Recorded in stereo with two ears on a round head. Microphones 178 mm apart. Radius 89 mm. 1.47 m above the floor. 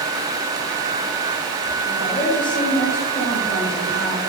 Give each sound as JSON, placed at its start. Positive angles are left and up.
{"t": 1.9, "sound": "a woman speaking", "side_deg": 5, "distance_m": 4.5}